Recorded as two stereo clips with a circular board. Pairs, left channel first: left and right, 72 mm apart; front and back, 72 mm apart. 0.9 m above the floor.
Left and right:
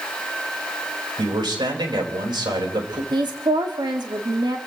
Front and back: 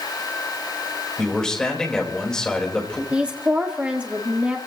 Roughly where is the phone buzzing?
No phone buzzing in this recording.